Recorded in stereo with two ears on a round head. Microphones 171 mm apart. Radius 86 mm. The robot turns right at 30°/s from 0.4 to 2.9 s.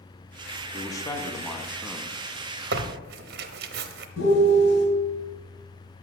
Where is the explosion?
I don't hear an explosion.